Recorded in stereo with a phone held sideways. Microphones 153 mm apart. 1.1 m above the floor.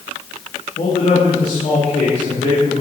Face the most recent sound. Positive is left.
turn(degrees=60)  # may be behind; listen again after turning